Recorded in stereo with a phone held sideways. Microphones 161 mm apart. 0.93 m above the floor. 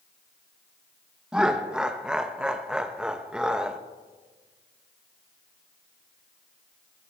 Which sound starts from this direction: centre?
Laughter, at 1.3 s.